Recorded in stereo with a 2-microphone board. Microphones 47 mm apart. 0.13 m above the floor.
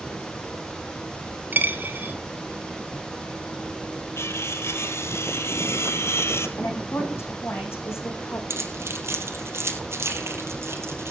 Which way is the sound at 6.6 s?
60° left (ahead or behind).